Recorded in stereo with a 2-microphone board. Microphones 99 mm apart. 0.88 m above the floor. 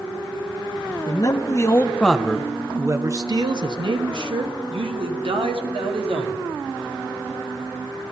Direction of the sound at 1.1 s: 45° left (ahead or behind).